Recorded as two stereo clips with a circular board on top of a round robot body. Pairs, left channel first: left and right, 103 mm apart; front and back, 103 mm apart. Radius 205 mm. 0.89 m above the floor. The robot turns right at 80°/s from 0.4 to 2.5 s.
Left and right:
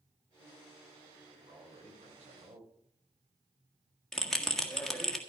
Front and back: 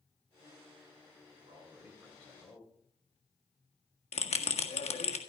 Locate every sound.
1.4 s a man speaking: 145° right, 4.5 m; by 2.7 s 55° right, 4.5 m
4.1 s a bell: 5° left, 1.8 m